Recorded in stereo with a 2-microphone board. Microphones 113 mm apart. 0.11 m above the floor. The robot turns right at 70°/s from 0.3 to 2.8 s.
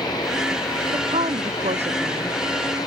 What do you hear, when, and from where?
0.9 s a woman speaking: 135° right; by 2.4 s 35° right